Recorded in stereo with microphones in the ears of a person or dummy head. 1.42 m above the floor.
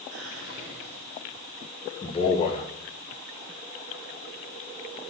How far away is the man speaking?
About 1.7 m.